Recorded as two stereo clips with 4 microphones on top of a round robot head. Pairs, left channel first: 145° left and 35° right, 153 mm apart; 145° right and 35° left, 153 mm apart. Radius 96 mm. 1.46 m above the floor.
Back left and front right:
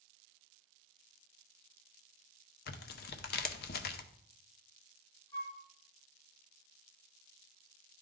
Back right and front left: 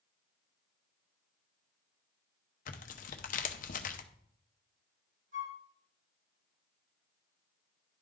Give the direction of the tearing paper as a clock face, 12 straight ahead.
6 o'clock.